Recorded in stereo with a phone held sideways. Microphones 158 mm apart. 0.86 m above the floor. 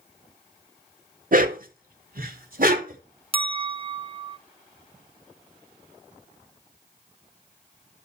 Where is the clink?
35° right (ahead or behind), 0.7 m.